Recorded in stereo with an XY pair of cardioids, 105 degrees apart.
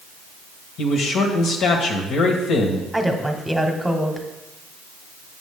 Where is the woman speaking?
5° right, 1.2 m.